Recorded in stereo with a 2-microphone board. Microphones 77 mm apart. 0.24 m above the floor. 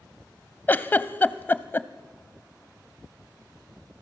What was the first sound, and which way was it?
A giggle, 25° left (ahead or behind).